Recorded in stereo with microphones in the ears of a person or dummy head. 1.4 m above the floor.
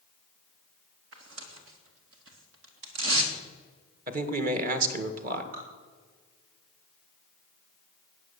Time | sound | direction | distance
1.1 | tearing paper | 80° right | 2 m
4.1 | a man speaking | 45° right (ahead or behind) | 1.8 m
5.5 | dripping | 50° right (ahead or behind) | 3.5 m